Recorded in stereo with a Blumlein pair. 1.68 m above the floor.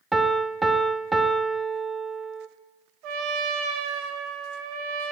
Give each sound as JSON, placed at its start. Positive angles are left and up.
{"t": 0.1, "sound": "a piano", "azimuth_deg": -10, "distance_m": 0.7}
{"t": 3.0, "sound": "a trumpet", "azimuth_deg": -40, "distance_m": 1.2}